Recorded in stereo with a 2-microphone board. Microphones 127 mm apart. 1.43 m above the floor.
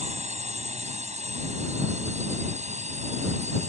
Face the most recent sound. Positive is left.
turn(degrees=-70)  # may be behind; listen again after turning